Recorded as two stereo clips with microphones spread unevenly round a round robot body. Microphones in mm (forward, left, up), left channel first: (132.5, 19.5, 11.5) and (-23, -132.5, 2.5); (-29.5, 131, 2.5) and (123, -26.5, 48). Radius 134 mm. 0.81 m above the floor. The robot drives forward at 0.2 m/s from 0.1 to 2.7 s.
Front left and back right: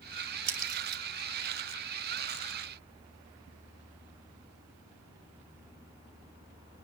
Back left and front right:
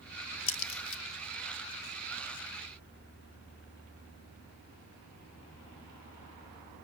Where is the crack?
170° left, 0.5 m; by 1.0 s 175° left, 0.6 m.